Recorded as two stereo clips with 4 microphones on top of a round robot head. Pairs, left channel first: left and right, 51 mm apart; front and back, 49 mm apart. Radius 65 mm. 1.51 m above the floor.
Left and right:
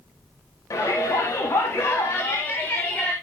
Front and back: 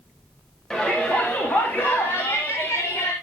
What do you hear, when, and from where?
0.7 s a shout: 75° left, 2.5 m; by 3.1 s 25° left, 2.5 m